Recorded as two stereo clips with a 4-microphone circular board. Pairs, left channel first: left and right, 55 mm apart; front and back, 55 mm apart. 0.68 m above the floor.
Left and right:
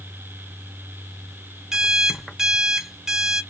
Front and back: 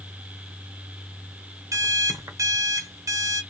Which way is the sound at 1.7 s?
170° right.